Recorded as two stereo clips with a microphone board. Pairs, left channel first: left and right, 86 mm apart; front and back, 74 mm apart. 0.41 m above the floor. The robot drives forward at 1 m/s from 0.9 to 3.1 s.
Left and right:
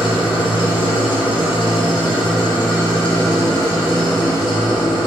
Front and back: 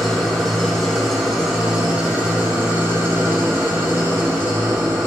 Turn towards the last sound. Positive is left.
turn(degrees=120)